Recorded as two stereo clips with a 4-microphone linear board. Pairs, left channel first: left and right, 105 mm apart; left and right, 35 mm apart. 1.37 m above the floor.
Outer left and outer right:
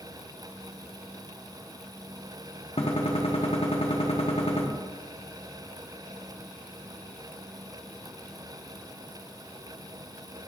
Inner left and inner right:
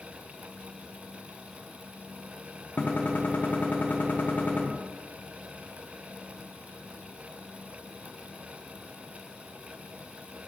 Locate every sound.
2.8 s a gunshot: 65° left (ahead or behind), 1.0 m